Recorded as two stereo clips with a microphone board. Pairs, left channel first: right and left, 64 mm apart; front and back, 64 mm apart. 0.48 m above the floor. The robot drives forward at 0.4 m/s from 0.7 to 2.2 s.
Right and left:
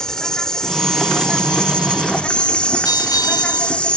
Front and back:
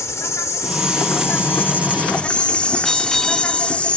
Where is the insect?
15° right; by 4.0 s 40° right.